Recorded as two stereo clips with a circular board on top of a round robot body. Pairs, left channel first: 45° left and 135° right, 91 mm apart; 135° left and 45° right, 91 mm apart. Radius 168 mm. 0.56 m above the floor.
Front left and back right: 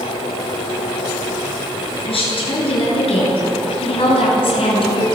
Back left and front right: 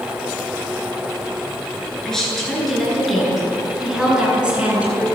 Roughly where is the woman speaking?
Ahead left.